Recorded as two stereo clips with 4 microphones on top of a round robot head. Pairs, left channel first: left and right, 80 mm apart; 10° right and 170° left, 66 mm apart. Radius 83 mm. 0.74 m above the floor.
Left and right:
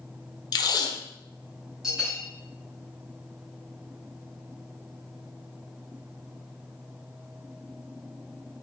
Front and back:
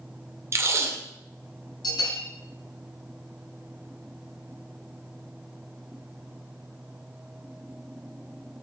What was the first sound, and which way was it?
Tape being pulled, 125° left.